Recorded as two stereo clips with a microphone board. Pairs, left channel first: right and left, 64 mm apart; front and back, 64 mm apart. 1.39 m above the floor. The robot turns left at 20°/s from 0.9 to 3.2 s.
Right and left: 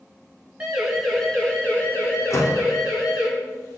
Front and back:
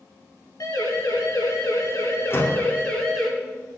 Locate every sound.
0.6 s a siren: 10° left, 5 m; by 3.3 s 90° right, 4.5 m
2.3 s a door slam: 50° right, 2.5 m; by 2.7 s 60° right, 2.5 m